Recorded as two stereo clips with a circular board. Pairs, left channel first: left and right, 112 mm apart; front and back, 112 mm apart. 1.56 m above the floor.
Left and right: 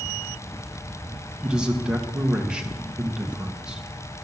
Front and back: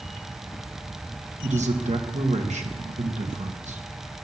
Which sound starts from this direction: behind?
A man speaking, at 1.4 s.